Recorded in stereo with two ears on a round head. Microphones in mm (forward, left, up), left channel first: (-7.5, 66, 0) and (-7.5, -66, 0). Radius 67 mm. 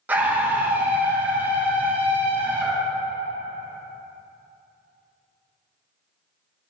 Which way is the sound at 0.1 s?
15° right (ahead or behind).